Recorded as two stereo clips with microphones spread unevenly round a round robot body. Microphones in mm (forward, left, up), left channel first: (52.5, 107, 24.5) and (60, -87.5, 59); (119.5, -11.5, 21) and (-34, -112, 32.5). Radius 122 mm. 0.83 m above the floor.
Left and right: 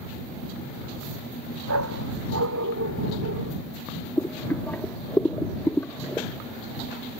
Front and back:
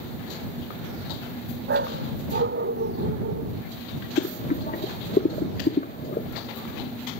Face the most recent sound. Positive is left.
turn(degrees=5)